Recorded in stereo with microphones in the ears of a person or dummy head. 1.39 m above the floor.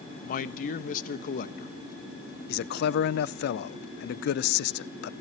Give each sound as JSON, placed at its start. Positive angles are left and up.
{"t": 0.2, "sound": "a man speaking", "side_deg": 55, "distance_m": 1.2}
{"t": 2.5, "sound": "a man speaking", "side_deg": 65, "distance_m": 0.6}